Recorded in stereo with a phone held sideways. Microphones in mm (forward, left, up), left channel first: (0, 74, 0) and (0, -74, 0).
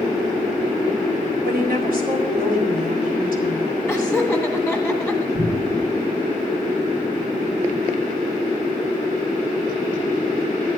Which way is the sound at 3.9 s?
5° right (ahead or behind).